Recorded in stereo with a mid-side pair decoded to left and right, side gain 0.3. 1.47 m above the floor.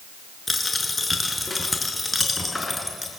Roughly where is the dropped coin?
Ahead left.